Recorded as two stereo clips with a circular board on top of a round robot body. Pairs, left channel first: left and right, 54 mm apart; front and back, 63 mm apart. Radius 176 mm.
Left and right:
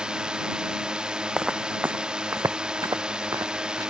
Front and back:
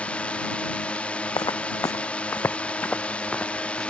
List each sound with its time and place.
0.0 s a drone: 40° right
1.4 s footsteps: 10° right; by 3.9 s 85° right